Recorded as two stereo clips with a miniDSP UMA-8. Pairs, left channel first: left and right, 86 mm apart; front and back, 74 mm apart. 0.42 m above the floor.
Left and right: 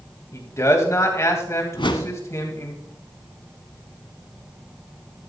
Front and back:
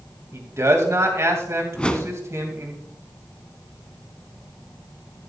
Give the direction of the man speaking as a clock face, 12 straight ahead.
7 o'clock.